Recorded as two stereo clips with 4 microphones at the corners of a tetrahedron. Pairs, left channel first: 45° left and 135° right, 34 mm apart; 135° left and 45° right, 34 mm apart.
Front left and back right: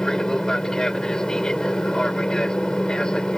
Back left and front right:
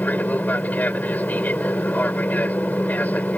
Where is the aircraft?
115° left; by 3.4 s 110° left.